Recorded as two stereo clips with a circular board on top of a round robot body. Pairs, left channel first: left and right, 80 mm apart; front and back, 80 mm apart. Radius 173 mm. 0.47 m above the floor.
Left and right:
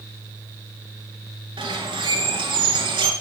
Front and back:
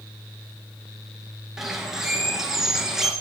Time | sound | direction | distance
1.6 | a bird | 95° right | 1.6 m